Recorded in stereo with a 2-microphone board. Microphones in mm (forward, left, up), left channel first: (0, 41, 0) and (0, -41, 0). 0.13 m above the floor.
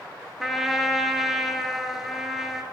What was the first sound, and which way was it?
A trumpet, 5° right (ahead or behind).